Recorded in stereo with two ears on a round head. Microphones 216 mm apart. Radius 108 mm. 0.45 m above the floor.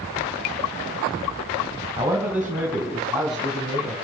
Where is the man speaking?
10° right (ahead or behind), 2.5 m; by 4.0 s centre (ahead or behind), 4 m.